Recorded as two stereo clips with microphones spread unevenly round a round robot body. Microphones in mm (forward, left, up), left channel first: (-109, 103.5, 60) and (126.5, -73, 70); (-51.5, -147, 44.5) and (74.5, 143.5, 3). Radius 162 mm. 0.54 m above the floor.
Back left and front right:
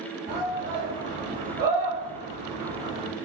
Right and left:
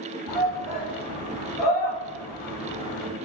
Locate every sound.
0.3 s a shout: 85° right, 1.5 m; by 3.1 s 115° right, 3 m